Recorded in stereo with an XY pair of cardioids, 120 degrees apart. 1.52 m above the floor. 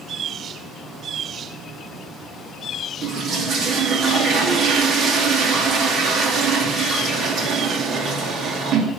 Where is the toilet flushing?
55° right, 2.5 m.